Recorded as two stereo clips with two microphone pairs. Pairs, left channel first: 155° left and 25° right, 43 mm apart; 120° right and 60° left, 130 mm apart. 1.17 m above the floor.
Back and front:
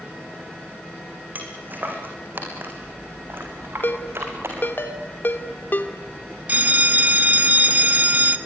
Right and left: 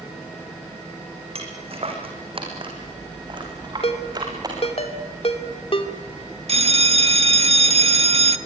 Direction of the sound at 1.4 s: 20° left.